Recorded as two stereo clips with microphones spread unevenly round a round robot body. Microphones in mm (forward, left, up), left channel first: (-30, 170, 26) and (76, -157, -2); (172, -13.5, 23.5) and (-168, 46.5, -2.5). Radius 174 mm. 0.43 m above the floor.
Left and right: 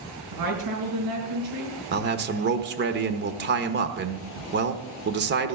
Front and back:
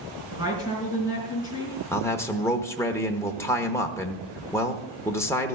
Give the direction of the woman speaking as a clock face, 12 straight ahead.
4 o'clock.